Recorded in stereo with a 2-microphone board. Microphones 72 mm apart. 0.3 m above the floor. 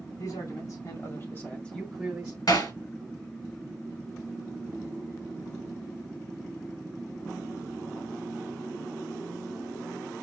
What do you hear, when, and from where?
0.2 s a man speaking: 60° left (ahead or behind), 2.5 m; by 2.4 s 20° right (ahead or behind), 1.4 m
2.5 s hammering: 65° left (ahead or behind), 1.9 m